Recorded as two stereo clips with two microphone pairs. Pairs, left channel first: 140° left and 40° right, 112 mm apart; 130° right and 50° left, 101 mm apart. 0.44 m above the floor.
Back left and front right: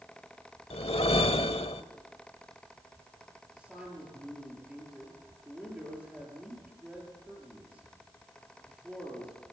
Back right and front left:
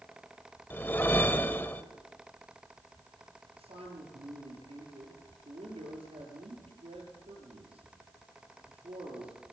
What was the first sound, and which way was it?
A whoosh, 160° left.